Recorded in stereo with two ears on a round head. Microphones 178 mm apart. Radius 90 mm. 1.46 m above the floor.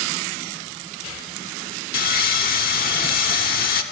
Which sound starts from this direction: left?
Sawing, at 1.9 s.